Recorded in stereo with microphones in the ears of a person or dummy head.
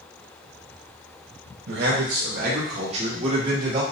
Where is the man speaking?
65° right (ahead or behind), 1.0 m; by 3.8 s 25° right (ahead or behind), 1.6 m.